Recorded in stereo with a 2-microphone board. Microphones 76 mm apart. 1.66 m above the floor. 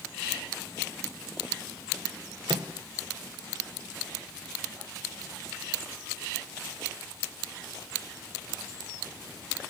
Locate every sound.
2.5 s a microwave: 70° right (ahead or behind), 1.2 m